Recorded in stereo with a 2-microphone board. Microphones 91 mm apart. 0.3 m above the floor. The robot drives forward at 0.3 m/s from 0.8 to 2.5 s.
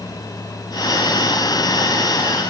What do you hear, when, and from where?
Only background noise.